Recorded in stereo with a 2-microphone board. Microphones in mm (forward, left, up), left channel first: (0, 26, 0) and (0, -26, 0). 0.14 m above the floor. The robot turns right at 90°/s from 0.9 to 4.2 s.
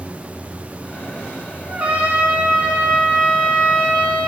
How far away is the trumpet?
About 0.8 m.